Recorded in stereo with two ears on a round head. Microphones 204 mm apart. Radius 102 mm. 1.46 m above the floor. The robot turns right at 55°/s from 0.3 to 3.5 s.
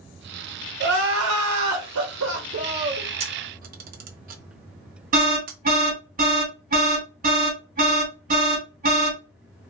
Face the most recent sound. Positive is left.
turn(degrees=-40)  # may be behind; listen again after turning